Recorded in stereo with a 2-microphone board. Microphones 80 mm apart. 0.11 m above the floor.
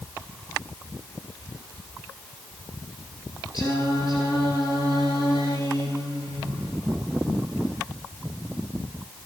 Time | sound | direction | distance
3.5 | singing | 45° left (ahead or behind) | 7.5 m